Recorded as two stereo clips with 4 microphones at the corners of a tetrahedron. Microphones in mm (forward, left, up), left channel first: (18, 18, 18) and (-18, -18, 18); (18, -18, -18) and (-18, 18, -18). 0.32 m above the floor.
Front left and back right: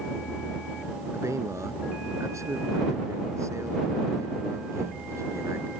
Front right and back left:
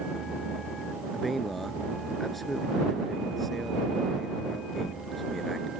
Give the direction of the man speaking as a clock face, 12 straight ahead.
4 o'clock.